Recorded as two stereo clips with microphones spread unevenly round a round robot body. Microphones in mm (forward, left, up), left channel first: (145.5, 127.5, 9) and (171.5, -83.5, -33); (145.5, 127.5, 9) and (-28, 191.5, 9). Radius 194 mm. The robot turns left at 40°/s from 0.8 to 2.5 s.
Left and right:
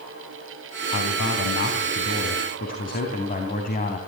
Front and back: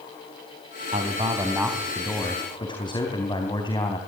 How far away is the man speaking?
About 3.5 m.